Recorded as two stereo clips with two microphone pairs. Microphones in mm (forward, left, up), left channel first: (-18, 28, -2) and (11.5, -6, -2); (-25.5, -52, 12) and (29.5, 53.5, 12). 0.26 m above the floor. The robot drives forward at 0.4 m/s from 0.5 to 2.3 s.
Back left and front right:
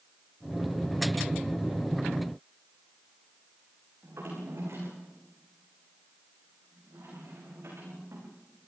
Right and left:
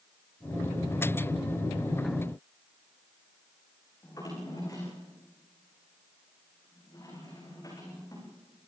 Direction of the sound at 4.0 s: 60° right.